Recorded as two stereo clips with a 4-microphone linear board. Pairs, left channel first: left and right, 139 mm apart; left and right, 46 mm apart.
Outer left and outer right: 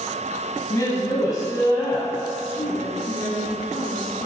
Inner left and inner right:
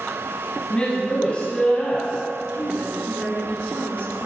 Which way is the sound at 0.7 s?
30° left (ahead or behind).